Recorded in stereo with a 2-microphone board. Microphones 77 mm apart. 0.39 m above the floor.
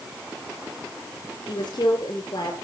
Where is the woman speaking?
70° left (ahead or behind), 6 m.